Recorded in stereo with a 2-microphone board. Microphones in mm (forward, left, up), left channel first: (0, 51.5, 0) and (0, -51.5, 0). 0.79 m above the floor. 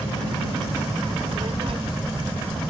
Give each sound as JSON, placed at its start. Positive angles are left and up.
{"t": 1.1, "sound": "a child speaking", "side_deg": -65}